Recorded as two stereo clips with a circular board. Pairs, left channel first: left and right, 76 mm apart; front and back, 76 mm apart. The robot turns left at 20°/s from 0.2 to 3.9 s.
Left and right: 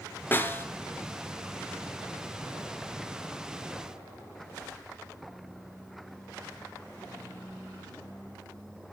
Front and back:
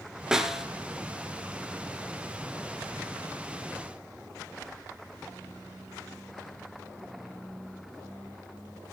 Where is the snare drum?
110° left, 1.4 m; by 0.7 s 100° left, 1.4 m.